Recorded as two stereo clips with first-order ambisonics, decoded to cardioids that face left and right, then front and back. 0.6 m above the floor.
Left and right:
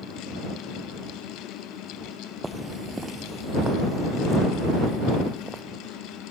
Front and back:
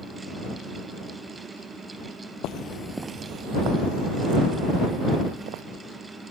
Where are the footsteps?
10° right; by 5.6 s 175° right.